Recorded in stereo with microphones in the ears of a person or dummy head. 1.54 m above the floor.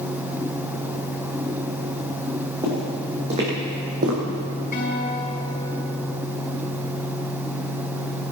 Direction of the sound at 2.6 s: 20° right (ahead or behind).